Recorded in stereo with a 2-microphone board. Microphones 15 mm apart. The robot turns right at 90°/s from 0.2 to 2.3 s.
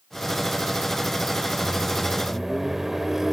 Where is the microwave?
140° left, 1.5 m; by 3.3 s 160° right, 1.5 m.